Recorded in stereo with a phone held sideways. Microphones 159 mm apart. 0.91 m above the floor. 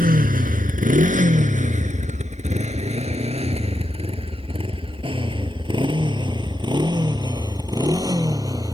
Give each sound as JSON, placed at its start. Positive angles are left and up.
{"t": 0.0, "sound": "a motorcycle", "side_deg": -65}